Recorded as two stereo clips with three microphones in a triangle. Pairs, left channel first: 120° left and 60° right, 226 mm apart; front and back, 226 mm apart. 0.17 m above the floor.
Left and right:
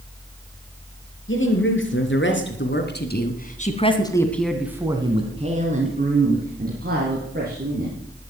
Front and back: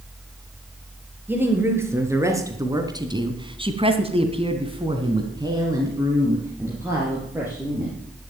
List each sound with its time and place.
1.3 s a woman speaking: 100° left, 4 m; by 8.0 s 100° right, 5.5 m